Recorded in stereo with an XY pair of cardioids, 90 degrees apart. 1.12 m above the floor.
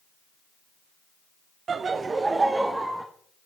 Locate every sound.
1.7 s laughter: 55° right, 0.6 m; by 3.1 s 15° right, 1.2 m